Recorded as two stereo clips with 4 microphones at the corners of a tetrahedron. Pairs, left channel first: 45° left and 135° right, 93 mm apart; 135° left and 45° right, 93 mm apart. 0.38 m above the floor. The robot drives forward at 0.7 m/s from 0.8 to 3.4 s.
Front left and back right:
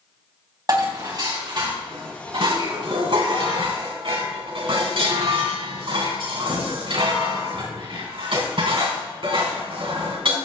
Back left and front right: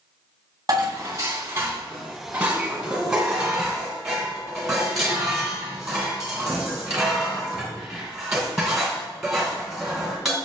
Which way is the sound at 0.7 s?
90° right.